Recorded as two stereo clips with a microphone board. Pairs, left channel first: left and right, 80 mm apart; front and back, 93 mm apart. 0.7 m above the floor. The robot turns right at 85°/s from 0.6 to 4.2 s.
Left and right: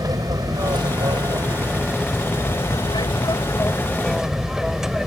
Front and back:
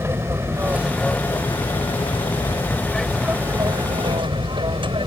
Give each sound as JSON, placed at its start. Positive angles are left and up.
{"t": 0.0, "sound": "an aircraft", "azimuth_deg": -120}